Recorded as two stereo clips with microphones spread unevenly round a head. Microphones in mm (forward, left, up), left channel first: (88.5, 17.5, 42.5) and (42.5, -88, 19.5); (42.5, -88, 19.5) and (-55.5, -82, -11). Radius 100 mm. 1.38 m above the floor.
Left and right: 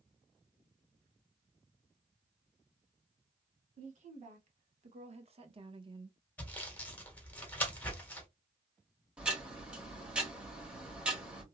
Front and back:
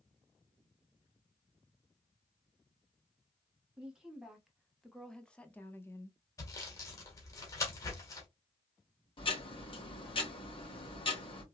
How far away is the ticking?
About 1.8 m.